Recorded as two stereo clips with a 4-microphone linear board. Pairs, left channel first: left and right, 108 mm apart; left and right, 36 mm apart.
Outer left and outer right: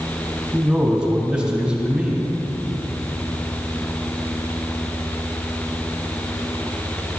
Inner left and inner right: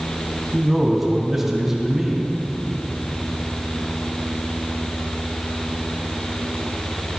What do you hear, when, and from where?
0.5 s a man speaking: 10° right (ahead or behind), 3 m